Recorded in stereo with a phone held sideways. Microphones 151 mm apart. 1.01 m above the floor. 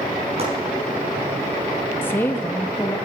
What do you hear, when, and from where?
0.4 s chopping: 45° right (ahead or behind), 4.5 m
2.0 s a woman speaking: 15° left (ahead or behind), 1.1 m